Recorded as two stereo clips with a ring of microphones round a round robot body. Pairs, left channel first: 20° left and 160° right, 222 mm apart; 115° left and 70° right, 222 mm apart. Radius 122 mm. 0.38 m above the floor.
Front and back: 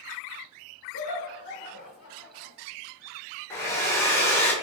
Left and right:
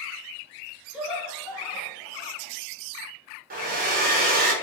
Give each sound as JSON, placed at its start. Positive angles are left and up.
{"t": 0.9, "sound": "laughter", "azimuth_deg": 20, "distance_m": 1.5}
{"t": 3.5, "sound": "a hair dryer", "azimuth_deg": -50, "distance_m": 1.6}